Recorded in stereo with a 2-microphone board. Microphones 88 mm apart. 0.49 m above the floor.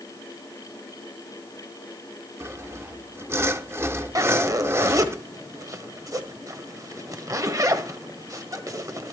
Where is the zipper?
40° right (ahead or behind), 1.4 m.